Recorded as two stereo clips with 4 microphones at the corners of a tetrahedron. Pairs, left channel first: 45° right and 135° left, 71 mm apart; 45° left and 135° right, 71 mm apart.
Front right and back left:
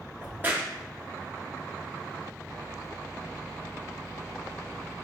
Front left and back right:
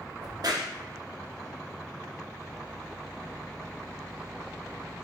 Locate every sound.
0.2 s a crack: 160° right, 0.7 m